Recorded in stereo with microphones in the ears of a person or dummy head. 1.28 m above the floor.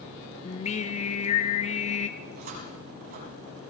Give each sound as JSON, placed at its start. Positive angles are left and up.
{"t": 0.5, "sound": "singing", "side_deg": 40, "distance_m": 0.7}
{"t": 2.2, "sound": "a cupboard door", "side_deg": -45, "distance_m": 5.0}